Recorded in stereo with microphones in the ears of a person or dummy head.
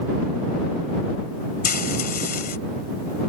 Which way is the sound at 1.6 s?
55° left (ahead or behind).